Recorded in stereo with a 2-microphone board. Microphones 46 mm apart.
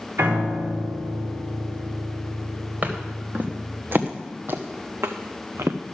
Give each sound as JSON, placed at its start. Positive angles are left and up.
{"t": 0.2, "sound": "a piano", "side_deg": -85, "distance_m": 4.0}
{"t": 2.8, "sound": "footsteps", "side_deg": -40, "distance_m": 2.5}